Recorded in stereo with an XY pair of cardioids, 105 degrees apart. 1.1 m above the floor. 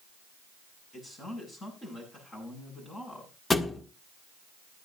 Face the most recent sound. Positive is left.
turn(degrees=30)